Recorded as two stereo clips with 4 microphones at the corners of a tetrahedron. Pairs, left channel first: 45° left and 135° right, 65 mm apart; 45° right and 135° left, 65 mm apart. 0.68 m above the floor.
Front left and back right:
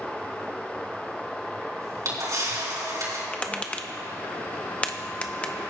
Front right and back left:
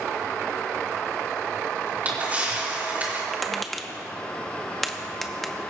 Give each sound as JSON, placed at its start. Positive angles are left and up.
{"t": 1.8, "sound": "a camera shutter", "azimuth_deg": -160, "distance_m": 3.5}
{"t": 3.3, "sound": "tapping", "azimuth_deg": 35, "distance_m": 0.7}